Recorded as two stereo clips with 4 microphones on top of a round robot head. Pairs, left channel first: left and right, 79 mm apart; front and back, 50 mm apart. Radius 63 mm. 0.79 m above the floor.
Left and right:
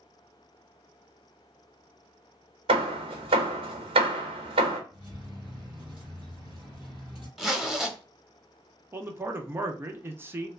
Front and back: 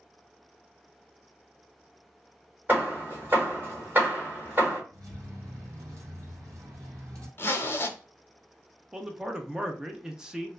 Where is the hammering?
110° right, 1.0 m.